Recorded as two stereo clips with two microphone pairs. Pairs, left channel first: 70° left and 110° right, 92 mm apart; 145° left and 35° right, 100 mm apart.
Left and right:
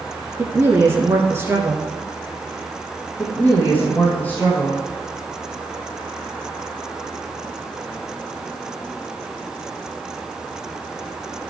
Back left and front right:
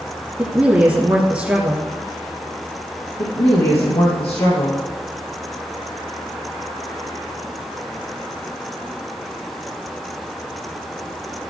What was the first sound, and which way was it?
A woman speaking, 95° right.